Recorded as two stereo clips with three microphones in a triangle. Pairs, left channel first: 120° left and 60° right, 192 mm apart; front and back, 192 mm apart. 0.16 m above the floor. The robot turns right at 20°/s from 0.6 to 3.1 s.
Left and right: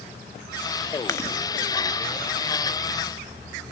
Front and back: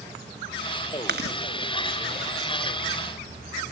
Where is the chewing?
170° right, 1.0 m; by 1.4 s 165° right, 1.0 m.